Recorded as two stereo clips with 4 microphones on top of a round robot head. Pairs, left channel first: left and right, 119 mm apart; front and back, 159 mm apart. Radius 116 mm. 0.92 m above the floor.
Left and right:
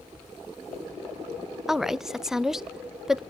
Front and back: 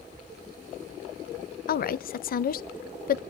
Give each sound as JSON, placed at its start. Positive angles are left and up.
{"t": 1.7, "sound": "a woman speaking", "azimuth_deg": -5, "distance_m": 0.7}